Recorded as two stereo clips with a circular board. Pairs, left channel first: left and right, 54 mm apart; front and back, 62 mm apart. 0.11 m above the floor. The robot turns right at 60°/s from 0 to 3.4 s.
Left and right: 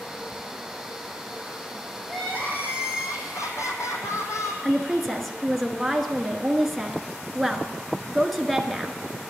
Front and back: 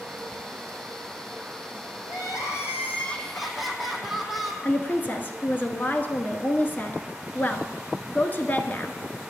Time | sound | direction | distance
2.1 | crying | 10° left | 1.6 m
4.6 | a woman speaking | straight ahead | 1.2 m